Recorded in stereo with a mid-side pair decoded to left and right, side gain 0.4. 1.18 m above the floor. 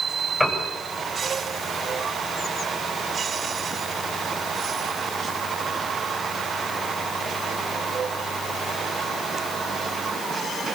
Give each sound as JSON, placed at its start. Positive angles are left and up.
{"t": 0.4, "sound": "a piano", "azimuth_deg": 10, "distance_m": 8.0}